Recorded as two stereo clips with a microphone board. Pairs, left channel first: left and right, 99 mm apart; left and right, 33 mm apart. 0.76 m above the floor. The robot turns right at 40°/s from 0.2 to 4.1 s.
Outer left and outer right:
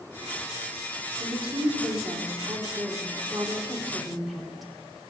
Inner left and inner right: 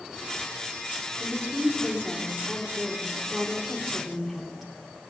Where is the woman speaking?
115° right, 2.5 m; by 5.1 s straight ahead, 2.5 m.